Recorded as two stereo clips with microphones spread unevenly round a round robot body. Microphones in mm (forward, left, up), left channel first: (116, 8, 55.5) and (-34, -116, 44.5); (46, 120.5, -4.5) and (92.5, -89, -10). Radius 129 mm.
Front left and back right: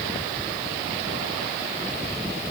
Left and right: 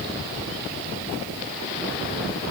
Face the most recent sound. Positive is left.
No sound to turn to.